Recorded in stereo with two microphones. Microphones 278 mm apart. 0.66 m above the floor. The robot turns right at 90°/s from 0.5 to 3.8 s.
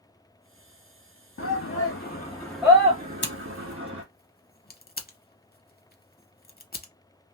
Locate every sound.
1.4 s a shout: 50° left (ahead or behind), 0.8 m; by 4.0 s 50° right (ahead or behind), 0.8 m
3.2 s scissors: 40° left (ahead or behind), 0.6 m; by 6.9 s 35° left (ahead or behind), 0.6 m